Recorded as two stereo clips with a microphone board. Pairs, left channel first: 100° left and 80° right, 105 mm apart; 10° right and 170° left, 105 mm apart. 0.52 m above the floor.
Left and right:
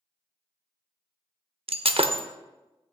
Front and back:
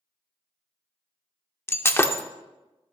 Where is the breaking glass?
80° right, 0.6 m.